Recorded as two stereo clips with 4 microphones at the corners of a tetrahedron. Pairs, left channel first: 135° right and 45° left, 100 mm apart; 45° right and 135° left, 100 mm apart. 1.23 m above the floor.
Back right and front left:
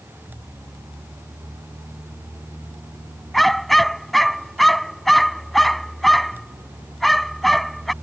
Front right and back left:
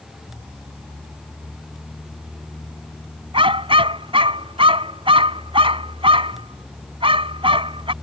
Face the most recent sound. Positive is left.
turn(degrees=135)